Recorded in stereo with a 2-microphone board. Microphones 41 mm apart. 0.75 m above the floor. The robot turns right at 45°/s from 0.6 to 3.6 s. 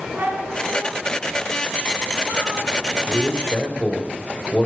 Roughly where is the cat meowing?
Behind right.